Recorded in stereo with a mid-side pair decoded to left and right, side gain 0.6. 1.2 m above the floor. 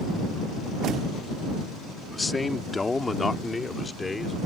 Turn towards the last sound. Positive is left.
turn(degrees=20)